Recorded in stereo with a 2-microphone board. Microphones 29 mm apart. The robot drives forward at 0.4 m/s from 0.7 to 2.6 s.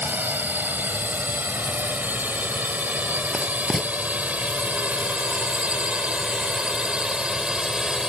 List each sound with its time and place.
0.0 s a drone: 80° right; by 8.1 s 25° right (ahead or behind)
3.3 s writing: 5° right (ahead or behind)